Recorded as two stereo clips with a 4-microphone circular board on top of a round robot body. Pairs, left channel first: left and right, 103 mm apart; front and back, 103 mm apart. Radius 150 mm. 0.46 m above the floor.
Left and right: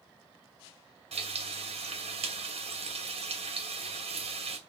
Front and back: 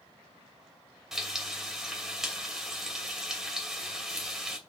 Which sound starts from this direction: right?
Frying, at 1.1 s.